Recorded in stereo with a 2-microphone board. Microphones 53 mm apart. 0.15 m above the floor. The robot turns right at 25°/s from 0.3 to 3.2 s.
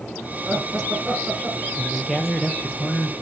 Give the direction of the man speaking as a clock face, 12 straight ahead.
12 o'clock.